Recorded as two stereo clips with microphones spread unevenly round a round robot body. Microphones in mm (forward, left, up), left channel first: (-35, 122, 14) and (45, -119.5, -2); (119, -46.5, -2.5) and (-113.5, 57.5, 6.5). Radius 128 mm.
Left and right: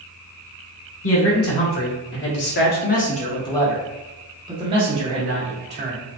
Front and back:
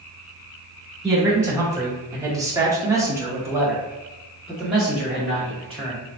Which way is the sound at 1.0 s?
75° left.